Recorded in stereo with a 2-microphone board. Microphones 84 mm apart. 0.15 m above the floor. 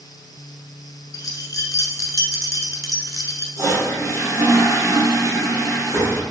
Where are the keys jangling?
45° left (ahead or behind), 1.2 m.